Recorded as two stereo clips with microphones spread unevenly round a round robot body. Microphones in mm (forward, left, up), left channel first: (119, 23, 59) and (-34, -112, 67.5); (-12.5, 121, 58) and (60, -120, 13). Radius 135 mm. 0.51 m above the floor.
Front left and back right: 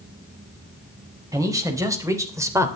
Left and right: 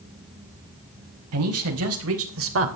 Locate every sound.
1.3 s a man speaking: 65° right, 4 m